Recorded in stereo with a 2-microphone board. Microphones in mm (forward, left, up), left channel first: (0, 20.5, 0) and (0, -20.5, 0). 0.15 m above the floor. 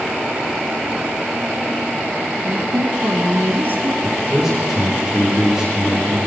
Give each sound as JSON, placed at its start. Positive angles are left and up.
{"t": 2.4, "sound": "a woman speaking", "side_deg": -45, "distance_m": 2.5}
{"t": 4.0, "sound": "a man speaking", "side_deg": -10, "distance_m": 9.5}